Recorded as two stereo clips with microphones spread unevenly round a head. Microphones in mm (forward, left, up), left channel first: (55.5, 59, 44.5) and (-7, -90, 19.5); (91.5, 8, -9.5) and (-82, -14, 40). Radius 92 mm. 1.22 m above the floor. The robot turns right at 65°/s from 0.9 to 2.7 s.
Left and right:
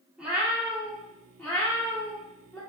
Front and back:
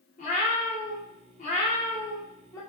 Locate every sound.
0.2 s a cat meowing: 10° right, 0.8 m; by 2.6 s 100° left, 0.8 m